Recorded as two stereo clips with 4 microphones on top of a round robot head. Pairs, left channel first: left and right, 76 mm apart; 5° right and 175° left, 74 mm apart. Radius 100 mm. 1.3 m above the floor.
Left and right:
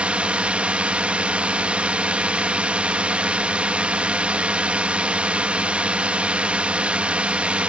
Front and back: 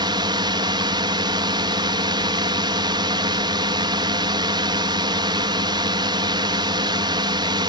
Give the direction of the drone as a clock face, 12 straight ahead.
5 o'clock.